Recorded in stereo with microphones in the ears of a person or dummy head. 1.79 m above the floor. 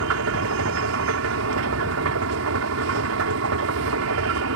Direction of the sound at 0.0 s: 75° right (ahead or behind).